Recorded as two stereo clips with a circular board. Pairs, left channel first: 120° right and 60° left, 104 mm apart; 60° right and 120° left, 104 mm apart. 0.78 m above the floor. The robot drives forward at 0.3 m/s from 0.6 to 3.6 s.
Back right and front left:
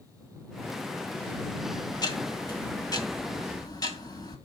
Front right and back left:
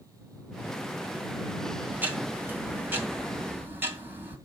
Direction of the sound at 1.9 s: 165° right.